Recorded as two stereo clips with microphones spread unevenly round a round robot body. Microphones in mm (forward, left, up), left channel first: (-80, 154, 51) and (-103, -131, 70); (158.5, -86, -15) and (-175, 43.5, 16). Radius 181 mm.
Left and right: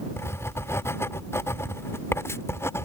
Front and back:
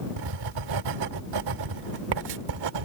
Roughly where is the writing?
Behind.